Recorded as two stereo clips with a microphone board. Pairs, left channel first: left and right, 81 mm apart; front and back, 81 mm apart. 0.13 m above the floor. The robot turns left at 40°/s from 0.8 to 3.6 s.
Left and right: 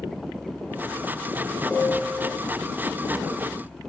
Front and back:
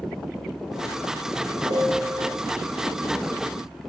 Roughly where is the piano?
Behind.